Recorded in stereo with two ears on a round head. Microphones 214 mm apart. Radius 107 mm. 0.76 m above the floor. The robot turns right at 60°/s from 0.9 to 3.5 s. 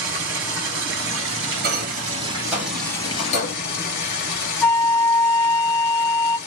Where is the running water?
110° right, 1.2 m; by 6.5 s 45° left, 1.2 m.